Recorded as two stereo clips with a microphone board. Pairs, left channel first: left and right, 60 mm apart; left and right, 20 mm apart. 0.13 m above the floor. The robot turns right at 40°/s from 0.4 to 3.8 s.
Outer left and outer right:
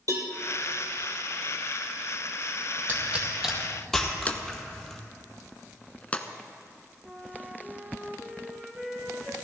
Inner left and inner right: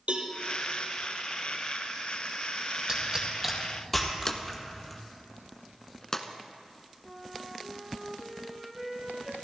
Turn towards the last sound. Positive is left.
turn(degrees=-15)  # may be behind; listen again after turning